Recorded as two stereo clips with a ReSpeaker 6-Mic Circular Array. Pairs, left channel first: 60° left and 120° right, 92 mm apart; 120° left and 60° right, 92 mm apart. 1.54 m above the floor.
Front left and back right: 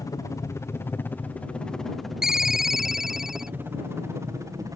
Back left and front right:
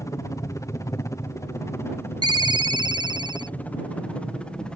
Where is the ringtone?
35° right.